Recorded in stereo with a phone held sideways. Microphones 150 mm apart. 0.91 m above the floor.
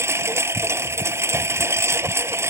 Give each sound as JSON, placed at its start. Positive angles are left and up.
{"t": 0.0, "sound": "a lawn mower", "side_deg": -15}